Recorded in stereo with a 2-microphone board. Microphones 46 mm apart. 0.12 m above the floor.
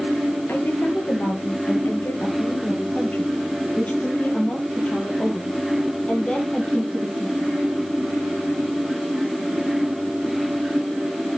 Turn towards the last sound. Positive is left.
turn(degrees=20)  # may be behind; listen again after turning